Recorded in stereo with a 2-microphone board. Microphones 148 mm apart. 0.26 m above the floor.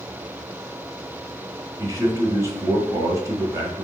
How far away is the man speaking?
About 1.2 m.